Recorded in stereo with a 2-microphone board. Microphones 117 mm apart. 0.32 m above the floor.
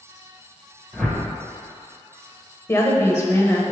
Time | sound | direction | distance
0.9 | a whoosh | centre (ahead or behind) | 1.2 m
2.7 | a woman speaking | 20° left (ahead or behind) | 1.0 m